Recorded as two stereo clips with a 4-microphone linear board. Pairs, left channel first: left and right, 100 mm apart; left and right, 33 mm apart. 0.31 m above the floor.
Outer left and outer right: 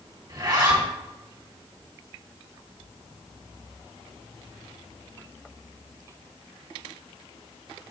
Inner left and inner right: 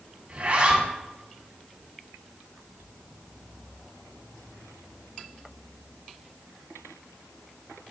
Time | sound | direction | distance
0.3 | a zipper | 45° right (ahead or behind) | 2.5 m